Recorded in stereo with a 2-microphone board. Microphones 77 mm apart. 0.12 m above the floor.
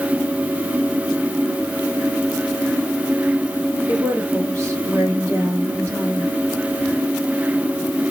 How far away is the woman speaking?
About 2.5 m.